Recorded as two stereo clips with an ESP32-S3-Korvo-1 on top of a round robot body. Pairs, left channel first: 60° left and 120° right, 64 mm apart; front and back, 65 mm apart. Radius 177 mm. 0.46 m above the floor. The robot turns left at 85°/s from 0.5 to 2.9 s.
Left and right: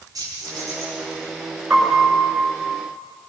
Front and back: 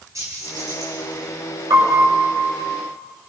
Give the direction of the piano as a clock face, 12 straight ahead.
7 o'clock.